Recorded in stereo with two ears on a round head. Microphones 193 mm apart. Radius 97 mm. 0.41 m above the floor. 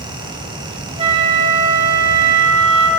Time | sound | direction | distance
1.0 | a flute | 30° right (ahead or behind) | 1.6 m